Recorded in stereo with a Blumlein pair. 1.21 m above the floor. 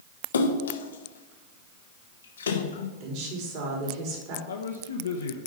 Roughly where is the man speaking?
Left.